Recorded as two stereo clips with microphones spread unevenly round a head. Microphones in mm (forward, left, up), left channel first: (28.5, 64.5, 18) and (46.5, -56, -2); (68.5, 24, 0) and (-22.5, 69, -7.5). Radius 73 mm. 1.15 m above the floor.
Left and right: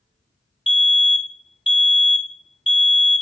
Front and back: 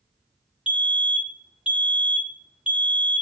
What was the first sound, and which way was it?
A fire alarm, 90° left.